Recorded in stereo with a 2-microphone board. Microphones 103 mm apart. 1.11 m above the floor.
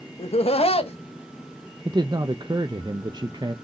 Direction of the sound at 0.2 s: 75° left (ahead or behind).